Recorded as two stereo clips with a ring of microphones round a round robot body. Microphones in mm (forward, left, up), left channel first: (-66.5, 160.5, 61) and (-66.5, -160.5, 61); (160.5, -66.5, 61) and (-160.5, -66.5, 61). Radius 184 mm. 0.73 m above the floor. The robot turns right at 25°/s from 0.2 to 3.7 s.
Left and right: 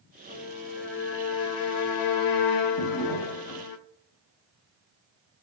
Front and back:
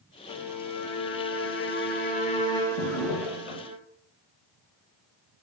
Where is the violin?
20° left, 0.6 m; by 3.8 s 105° left, 0.6 m.